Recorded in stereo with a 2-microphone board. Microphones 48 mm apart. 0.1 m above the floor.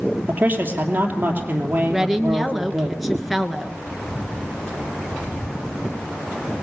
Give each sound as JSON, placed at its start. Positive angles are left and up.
{"t": 0.3, "sound": "a man speaking", "side_deg": -35, "distance_m": 3.0}
{"t": 1.9, "sound": "a woman speaking", "side_deg": 0, "distance_m": 1.2}